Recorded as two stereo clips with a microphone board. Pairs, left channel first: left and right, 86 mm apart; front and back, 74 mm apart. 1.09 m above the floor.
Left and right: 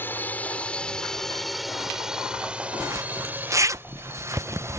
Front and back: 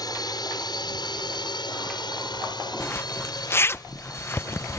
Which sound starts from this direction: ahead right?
A zipper, at 2.8 s.